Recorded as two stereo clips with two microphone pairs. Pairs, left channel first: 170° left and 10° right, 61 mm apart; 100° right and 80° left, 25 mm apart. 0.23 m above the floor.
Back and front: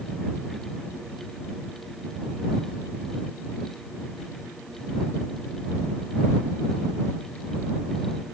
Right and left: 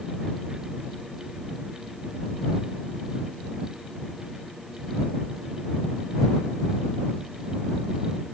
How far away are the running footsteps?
No running footsteps in this recording.